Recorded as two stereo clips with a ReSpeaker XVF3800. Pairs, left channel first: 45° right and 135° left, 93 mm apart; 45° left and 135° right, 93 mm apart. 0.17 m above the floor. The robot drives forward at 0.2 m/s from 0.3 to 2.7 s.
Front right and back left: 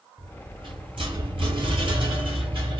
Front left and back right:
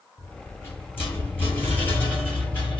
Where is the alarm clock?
No alarm clock in this recording.